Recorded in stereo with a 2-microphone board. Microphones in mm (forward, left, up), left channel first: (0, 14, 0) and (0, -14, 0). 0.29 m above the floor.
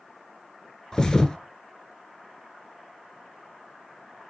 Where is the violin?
No violin in this recording.